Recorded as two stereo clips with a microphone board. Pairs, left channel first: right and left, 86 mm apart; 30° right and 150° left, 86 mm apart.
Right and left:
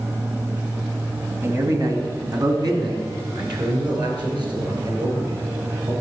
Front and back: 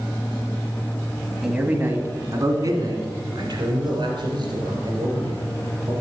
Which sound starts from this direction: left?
A man speaking, at 1.4 s.